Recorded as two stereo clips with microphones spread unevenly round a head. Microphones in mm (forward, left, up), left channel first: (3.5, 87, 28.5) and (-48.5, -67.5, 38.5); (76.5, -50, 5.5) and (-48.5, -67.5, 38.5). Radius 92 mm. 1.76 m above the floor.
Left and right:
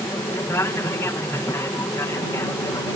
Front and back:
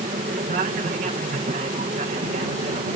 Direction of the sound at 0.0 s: 145° left.